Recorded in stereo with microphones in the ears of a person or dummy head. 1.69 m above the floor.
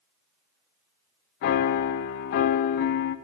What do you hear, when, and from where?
1.4 s a piano: 50° left (ahead or behind), 0.5 m